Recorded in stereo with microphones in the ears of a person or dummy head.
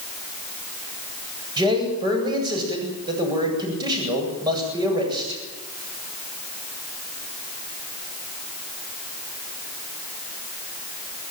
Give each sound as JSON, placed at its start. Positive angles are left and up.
{"t": 1.6, "sound": "a man speaking", "side_deg": -20, "distance_m": 8.5}